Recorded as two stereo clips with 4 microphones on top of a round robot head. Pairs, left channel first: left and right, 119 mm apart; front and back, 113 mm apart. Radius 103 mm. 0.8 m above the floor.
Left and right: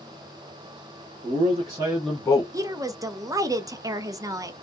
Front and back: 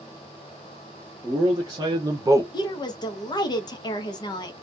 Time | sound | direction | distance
1.2 | a man speaking | 115° right | 1.5 m
2.5 | a woman speaking | 35° right | 0.6 m